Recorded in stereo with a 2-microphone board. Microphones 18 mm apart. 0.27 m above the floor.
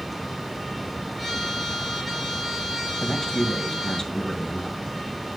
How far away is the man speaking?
About 1.7 m.